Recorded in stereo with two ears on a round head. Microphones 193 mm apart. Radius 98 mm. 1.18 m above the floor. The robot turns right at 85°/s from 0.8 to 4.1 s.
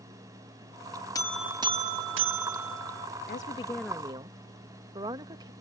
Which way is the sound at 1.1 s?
160° left.